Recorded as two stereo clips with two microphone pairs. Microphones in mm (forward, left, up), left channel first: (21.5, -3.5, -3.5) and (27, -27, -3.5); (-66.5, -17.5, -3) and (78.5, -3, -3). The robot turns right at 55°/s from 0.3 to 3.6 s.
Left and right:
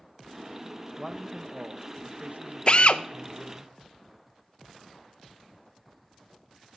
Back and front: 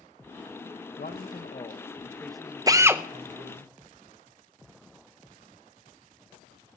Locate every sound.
1.0 s a man speaking: 160° right, 1.0 m; by 3.7 s 15° right, 1.0 m
2.7 s a drill: 60° left, 0.5 m; by 3.0 s 80° left, 0.5 m